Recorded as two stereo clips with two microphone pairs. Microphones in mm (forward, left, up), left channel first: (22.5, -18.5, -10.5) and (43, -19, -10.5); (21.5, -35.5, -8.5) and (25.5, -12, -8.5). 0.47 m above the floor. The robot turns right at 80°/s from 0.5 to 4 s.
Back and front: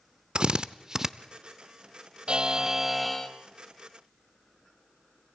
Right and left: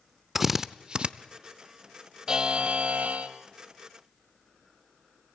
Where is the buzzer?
20° left, 1.4 m; by 3.3 s 105° left, 1.4 m.